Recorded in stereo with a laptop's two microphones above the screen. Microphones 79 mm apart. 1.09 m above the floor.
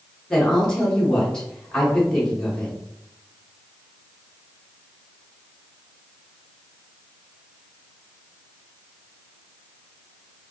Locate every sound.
0.3 s a woman speaking: 10° left (ahead or behind), 1.1 m